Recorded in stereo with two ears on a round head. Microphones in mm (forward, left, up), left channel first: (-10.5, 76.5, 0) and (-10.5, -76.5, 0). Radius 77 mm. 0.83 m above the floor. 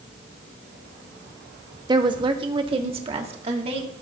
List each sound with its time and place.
1.9 s a woman speaking: 25° right (ahead or behind), 1.0 m; by 3.9 s 40° right (ahead or behind), 2 m